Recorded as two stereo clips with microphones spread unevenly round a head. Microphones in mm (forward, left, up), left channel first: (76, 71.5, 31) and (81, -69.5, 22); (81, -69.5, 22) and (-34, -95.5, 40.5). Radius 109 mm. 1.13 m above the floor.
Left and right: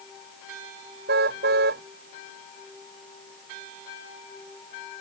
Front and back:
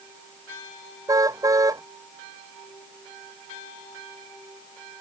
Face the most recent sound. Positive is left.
turn(degrees=-105)